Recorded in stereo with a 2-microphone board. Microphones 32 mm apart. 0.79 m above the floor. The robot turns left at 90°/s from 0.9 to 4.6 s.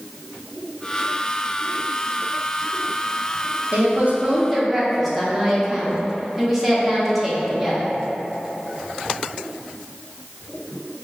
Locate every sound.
3.7 s a woman speaking: 95° right, 0.9 m; by 7.9 s 175° right, 0.9 m